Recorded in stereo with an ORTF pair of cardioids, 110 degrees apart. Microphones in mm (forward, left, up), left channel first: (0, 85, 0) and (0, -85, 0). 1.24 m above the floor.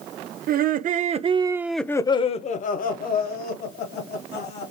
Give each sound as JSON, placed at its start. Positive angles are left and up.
{"t": 0.5, "sound": "laughter", "azimuth_deg": -60, "distance_m": 1.0}